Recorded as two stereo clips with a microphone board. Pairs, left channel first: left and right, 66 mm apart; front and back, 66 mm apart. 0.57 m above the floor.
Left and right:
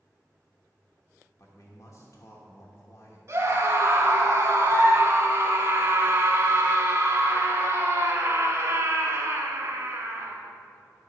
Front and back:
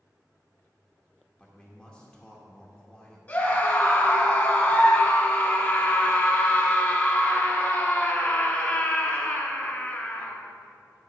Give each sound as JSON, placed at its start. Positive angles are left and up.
{"t": 1.4, "sound": "a man speaking", "azimuth_deg": 75, "distance_m": 1.1}
{"t": 3.3, "sound": "a scream", "azimuth_deg": -55, "distance_m": 1.9}